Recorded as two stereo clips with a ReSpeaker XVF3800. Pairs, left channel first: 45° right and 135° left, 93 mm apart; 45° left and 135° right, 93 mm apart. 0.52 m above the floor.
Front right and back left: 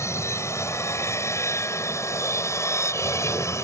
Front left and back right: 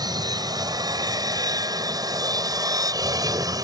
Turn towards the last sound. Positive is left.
turn(degrees=-95)